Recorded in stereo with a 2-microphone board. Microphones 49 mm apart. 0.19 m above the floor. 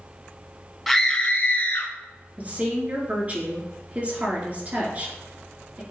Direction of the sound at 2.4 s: 35° right (ahead or behind).